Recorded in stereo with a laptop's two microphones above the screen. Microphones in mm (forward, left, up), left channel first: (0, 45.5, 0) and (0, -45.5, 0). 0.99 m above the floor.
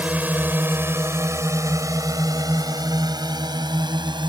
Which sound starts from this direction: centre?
A drone, at 0.0 s.